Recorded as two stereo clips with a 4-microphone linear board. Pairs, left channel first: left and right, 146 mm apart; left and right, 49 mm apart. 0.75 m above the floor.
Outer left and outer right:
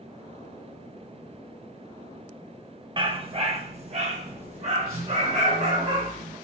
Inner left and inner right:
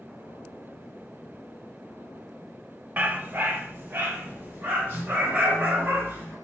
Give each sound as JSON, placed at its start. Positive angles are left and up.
{"t": 3.0, "sound": "a dog barking", "side_deg": -35, "distance_m": 0.5}